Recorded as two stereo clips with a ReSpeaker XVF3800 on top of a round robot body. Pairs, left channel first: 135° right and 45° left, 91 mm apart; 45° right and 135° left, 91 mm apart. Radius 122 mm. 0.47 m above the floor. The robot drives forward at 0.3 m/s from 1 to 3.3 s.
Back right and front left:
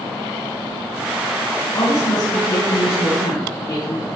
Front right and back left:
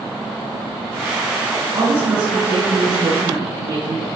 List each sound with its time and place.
1.7 s a woman speaking: 175° right, 4 m